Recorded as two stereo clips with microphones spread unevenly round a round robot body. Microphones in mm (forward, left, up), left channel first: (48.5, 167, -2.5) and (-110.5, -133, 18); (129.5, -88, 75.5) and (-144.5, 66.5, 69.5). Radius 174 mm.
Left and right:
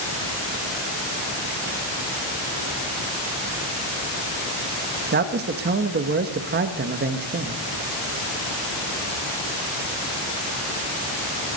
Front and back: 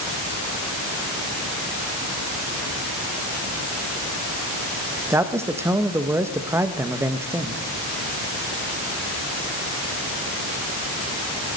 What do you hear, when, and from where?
5.1 s a man speaking: 140° right, 0.9 m